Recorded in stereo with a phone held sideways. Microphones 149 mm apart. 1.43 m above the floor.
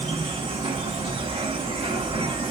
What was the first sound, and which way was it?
An insect, 35° right (ahead or behind).